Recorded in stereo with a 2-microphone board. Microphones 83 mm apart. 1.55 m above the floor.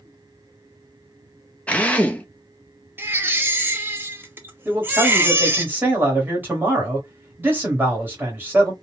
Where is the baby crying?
25° right (ahead or behind), 0.6 m.